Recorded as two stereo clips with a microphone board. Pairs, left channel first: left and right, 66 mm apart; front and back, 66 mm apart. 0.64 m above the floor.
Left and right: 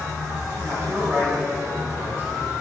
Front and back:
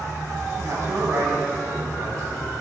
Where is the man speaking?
140° right, 6.5 m.